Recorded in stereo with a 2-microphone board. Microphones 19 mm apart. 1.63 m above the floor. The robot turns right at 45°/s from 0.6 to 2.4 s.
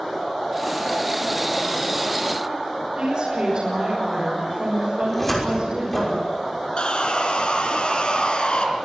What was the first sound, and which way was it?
A woman speaking, 50° right (ahead or behind).